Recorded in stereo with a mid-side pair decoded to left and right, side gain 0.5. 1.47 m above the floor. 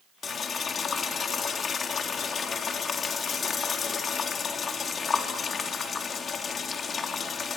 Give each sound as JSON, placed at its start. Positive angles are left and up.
{"t": 0.2, "sound": "boiling", "azimuth_deg": 40, "distance_m": 3.5}